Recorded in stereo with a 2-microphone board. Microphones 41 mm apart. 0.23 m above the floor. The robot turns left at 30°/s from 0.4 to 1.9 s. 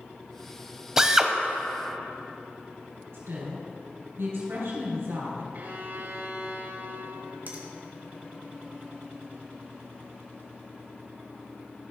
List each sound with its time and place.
1.0 s a drill: 15° right (ahead or behind), 0.7 m
3.1 s a woman speaking: 70° right (ahead or behind), 3.5 m
5.5 s a violin: 50° right (ahead or behind), 0.8 m
7.5 s a finger snap: 55° right (ahead or behind), 1.8 m